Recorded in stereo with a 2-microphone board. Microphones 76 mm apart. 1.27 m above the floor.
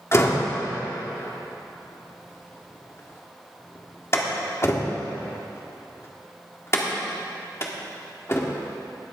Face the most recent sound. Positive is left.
turn(degrees=35)  # may be behind; listen again after turning